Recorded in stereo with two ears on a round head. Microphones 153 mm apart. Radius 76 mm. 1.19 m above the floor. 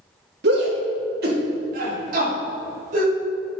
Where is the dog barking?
I don't hear a dog barking.